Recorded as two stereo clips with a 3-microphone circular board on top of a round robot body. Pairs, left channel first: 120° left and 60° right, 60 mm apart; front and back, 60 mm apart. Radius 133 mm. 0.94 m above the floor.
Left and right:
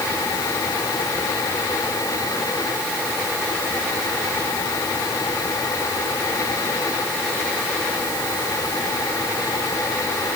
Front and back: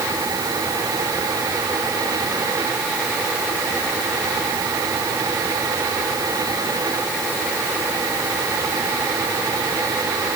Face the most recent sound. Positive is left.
No sound to turn to.